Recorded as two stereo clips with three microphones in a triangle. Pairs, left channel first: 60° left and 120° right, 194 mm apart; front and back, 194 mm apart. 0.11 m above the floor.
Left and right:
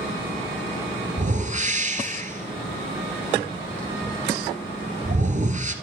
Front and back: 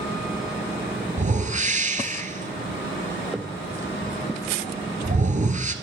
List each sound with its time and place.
1.2 s a whoosh: 150° right, 1.3 m